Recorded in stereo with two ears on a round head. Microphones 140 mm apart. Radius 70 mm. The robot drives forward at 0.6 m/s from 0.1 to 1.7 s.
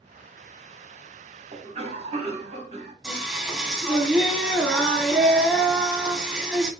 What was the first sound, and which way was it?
A cough, 45° right (ahead or behind).